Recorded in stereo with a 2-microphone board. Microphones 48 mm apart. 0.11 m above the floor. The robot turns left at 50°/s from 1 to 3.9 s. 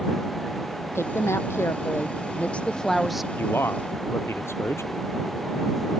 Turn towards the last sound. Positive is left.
turn(degrees=65)  # may be behind; listen again after turning